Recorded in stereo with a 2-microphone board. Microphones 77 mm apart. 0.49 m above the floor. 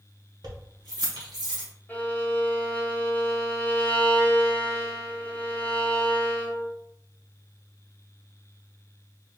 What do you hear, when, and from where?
0.4 s keys jangling: 60° right (ahead or behind), 1.0 m; by 1.7 s 75° right (ahead or behind), 1.8 m
1.9 s a violin: 25° left (ahead or behind), 1.0 m